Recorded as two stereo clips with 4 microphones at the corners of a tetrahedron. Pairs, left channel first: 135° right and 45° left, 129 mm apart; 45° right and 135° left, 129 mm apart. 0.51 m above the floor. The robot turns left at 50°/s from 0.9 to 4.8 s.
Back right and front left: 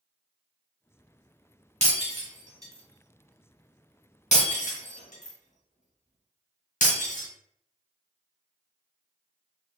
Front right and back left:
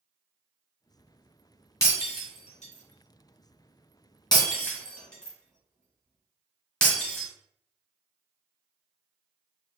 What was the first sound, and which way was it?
Breaking glass, 20° left.